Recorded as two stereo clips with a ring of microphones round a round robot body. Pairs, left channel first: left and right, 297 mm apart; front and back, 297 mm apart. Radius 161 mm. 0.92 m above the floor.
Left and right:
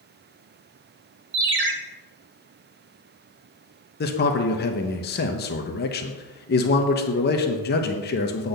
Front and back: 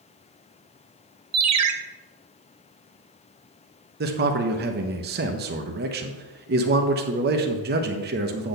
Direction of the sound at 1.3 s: 145° right.